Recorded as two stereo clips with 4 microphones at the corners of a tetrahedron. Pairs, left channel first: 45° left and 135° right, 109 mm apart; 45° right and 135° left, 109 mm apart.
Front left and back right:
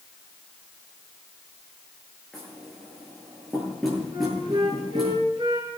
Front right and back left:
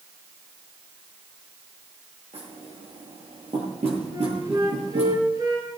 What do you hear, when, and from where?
2.3 s knocking: 135° left, 10 m
4.1 s a flute: 175° right, 7.5 m